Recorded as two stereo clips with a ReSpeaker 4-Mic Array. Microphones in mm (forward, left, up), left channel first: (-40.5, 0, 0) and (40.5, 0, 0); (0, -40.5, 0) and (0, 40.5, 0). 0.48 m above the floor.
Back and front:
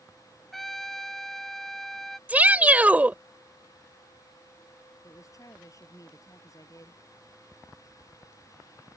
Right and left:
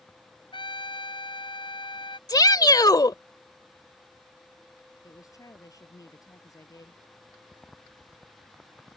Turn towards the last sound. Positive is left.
turn(degrees=-135)